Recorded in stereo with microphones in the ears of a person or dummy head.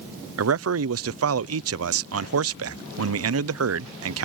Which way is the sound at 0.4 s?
70° right (ahead or behind).